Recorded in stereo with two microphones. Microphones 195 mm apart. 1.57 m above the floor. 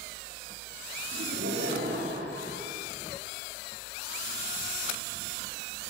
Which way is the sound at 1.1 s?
85° right.